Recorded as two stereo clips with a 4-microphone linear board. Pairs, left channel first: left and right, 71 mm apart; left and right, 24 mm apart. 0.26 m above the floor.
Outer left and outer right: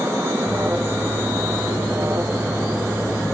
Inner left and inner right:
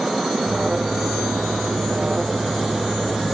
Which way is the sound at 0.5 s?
35° right (ahead or behind).